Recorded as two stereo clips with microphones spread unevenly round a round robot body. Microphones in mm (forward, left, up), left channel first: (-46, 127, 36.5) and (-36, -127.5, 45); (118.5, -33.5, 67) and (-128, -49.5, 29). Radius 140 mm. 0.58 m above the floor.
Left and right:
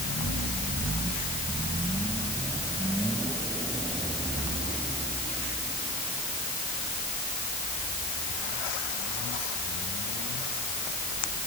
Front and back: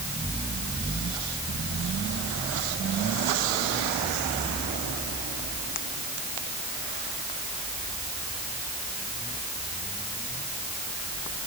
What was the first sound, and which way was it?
Only background noise.